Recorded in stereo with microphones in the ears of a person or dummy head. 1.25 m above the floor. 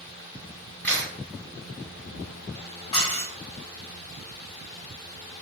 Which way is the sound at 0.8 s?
5° left (ahead or behind).